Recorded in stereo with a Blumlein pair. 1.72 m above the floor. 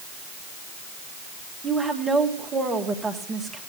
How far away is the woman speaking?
About 1.9 m.